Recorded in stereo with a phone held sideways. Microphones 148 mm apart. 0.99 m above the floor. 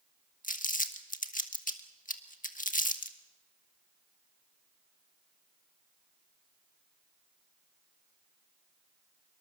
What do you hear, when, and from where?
0.4 s crumpling: 65° left (ahead or behind), 1.5 m